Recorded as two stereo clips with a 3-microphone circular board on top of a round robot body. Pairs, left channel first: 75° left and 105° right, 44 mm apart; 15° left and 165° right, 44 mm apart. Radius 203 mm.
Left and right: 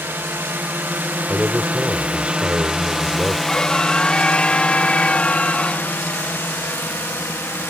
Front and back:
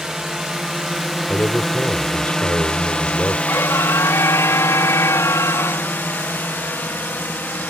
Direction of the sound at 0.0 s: 85° right.